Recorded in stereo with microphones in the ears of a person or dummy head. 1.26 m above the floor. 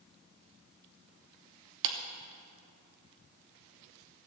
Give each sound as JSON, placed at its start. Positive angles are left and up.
{"t": 1.8, "sound": "a clap", "side_deg": -65, "distance_m": 1.0}